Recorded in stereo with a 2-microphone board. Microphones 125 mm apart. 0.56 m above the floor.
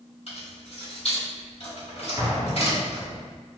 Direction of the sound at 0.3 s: 65° left (ahead or behind).